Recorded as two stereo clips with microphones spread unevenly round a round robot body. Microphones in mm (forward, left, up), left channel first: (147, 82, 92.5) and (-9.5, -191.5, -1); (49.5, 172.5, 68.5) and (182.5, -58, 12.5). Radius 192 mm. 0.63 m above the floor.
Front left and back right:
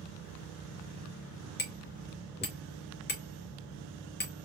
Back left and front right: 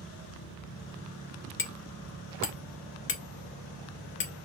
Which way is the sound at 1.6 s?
120° left.